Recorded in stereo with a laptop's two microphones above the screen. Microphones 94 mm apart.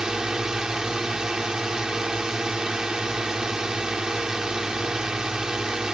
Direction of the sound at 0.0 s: 5° right (ahead or behind).